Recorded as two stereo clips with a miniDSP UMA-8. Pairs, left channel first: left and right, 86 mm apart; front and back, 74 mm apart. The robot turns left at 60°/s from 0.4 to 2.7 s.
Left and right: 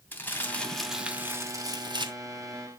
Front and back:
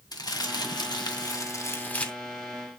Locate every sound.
0.1 s crumpling: 20° left, 2.5 m; by 2.1 s 80° right, 2.5 m